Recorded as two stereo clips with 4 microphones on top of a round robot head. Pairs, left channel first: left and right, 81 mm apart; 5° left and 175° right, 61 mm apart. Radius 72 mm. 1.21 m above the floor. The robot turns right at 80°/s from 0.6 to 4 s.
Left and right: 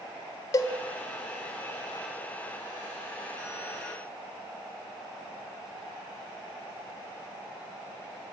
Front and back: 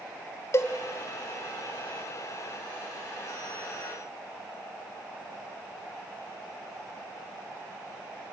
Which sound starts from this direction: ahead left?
A cowbell, at 0.5 s.